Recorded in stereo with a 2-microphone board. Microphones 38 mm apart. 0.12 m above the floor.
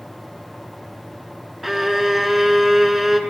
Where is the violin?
5° right (ahead or behind), 0.5 m.